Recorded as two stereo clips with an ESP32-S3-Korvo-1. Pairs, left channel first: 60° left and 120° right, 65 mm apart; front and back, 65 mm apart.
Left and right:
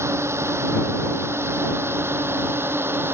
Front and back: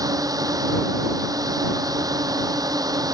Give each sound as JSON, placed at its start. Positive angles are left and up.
{"t": 0.0, "sound": "a drone", "azimuth_deg": -165}